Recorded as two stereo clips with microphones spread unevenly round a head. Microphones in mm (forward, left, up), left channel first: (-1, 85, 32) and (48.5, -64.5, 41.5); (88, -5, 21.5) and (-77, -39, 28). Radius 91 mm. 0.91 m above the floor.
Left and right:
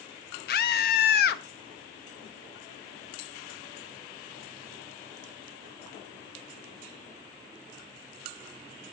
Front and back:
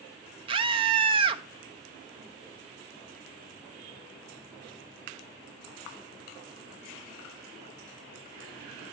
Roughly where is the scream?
Behind left.